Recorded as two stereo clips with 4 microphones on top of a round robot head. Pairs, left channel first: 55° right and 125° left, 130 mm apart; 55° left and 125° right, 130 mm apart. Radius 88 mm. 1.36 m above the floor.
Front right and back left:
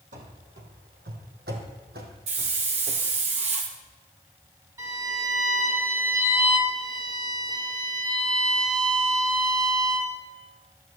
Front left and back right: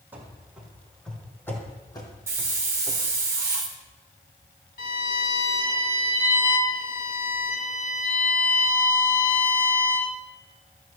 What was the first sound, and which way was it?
Running footsteps, 160° left.